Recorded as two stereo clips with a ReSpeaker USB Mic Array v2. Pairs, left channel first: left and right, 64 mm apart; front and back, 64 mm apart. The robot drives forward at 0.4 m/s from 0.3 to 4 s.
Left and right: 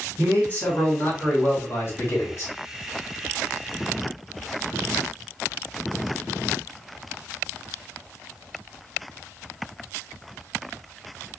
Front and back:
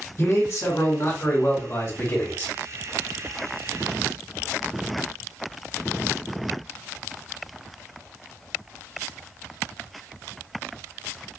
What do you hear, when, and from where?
0.2 s a man speaking: 30° left, 1.8 m; by 2.5 s 55° left, 1.2 m